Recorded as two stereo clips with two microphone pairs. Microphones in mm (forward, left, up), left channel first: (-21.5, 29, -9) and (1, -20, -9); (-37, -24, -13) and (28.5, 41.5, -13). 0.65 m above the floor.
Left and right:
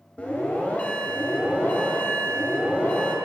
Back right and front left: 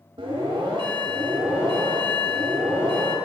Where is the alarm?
50° left, 2.5 m.